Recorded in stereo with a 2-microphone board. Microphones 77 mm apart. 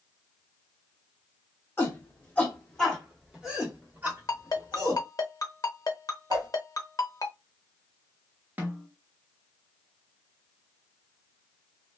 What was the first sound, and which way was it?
A shout, 30° left (ahead or behind).